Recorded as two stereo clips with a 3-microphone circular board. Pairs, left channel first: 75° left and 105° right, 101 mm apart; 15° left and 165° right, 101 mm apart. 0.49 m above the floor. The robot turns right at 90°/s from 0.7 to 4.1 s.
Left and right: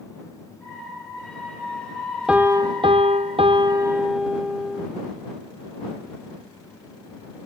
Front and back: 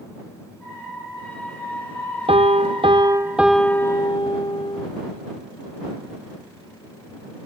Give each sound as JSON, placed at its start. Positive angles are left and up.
{"t": 2.3, "sound": "a piano", "azimuth_deg": 175}